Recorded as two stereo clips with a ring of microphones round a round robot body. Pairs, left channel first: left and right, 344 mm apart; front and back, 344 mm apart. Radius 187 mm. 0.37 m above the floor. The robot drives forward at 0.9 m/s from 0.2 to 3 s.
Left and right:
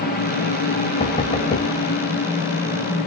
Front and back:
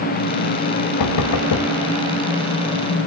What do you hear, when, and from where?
1.0 s knocking: 20° left, 2.0 m; by 1.7 s 30° left, 1.5 m